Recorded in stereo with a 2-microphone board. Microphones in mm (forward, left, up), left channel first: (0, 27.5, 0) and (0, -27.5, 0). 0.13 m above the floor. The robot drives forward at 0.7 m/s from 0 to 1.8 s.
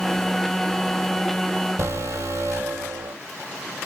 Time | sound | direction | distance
1.8 | an alarm | 70° right (ahead or behind) | 3 m